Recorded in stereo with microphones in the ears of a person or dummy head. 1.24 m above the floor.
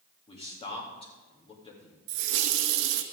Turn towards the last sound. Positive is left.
turn(degrees=-70)  # may be behind; listen again after turning